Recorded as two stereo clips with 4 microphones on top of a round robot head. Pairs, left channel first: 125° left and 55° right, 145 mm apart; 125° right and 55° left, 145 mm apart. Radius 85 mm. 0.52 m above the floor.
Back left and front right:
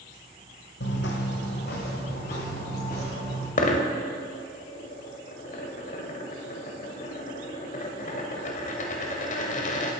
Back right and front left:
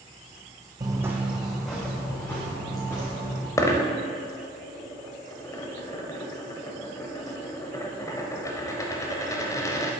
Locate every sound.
0.8 s footsteps: 120° left, 1.2 m; by 3.5 s 165° left, 4 m
3.6 s a dropped coin: 165° left, 0.9 m